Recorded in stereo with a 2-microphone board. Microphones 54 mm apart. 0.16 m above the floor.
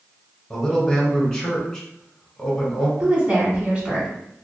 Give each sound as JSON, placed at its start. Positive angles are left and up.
{"t": 0.5, "sound": "a man speaking", "side_deg": 15, "distance_m": 1.3}
{"t": 3.0, "sound": "a woman speaking", "side_deg": -25, "distance_m": 1.0}